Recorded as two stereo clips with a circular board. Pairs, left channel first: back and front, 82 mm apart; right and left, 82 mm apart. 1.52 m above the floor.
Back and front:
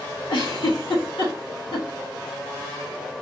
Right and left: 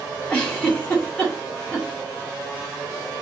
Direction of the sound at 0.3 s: 170° right.